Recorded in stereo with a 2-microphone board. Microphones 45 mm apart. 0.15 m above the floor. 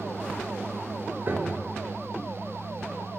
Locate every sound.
1.3 s a piano: 45° right (ahead or behind), 1.1 m